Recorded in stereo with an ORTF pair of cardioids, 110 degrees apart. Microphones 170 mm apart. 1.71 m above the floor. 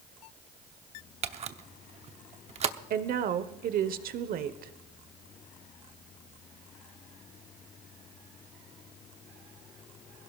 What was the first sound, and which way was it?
A camera shutter, 40° right.